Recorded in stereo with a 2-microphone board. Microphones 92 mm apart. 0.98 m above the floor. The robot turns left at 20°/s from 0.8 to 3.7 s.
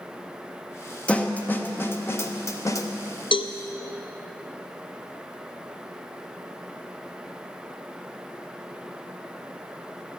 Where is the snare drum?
15° left (ahead or behind), 0.8 m; by 2.9 s 35° left (ahead or behind), 0.8 m.